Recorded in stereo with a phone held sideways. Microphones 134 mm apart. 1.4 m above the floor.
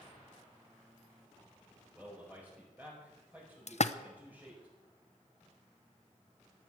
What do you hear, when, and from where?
1.9 s a man speaking: 15° right (ahead or behind), 5.5 m
3.7 s a splash: 55° left (ahead or behind), 0.6 m